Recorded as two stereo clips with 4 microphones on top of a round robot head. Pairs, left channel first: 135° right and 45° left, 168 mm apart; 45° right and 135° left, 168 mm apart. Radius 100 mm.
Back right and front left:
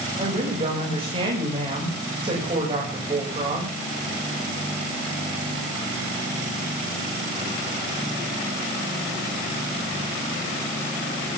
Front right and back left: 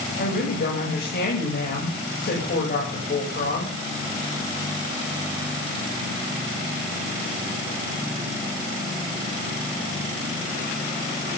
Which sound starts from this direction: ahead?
A woman speaking, at 0.2 s.